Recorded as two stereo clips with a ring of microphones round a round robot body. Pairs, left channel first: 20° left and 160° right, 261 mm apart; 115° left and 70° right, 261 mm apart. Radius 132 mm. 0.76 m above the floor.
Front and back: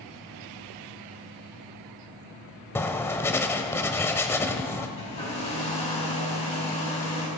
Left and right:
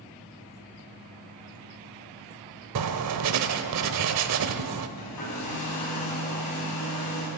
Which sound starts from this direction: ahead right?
Writing, at 2.8 s.